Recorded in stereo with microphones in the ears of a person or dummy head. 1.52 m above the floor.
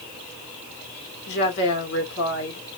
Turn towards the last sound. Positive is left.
turn(degrees=70)  # may be behind; listen again after turning